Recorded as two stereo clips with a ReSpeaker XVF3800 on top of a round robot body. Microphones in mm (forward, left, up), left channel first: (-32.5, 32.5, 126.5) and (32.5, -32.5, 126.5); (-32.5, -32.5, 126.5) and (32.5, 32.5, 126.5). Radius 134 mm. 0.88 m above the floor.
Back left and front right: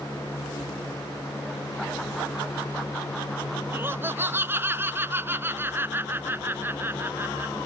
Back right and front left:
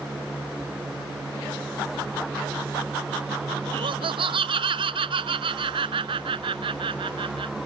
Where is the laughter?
20° left.